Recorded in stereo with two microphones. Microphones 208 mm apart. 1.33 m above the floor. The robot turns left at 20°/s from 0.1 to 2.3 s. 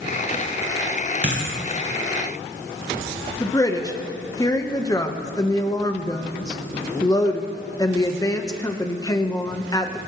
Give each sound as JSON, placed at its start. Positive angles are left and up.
{"t": 1.2, "sound": "a dropped coin", "side_deg": -60, "distance_m": 4.5}
{"t": 3.4, "sound": "a woman speaking", "side_deg": 15, "distance_m": 1.3}